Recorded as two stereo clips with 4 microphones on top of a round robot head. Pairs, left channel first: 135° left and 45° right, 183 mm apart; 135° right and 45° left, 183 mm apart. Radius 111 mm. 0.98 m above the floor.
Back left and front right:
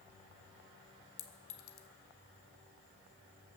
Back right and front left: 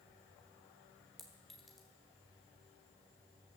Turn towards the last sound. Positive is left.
turn(degrees=135)